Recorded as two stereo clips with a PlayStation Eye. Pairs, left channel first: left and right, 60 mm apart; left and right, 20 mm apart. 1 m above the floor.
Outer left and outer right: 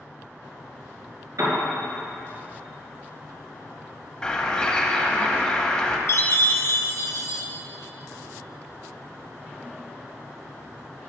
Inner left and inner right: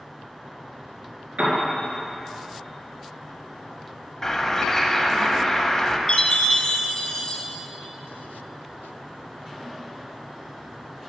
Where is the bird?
15° left (ahead or behind), 1.0 m.